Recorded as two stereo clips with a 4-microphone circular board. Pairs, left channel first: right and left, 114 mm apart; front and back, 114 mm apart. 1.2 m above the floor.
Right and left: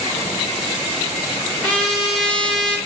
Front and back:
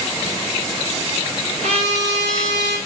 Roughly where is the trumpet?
Behind.